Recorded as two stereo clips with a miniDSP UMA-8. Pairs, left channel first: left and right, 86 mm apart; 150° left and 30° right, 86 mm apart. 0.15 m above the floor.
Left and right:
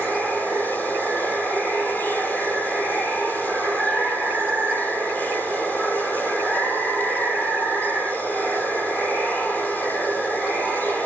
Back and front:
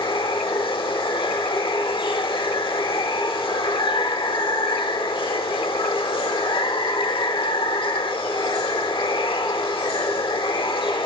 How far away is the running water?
About 1.3 m.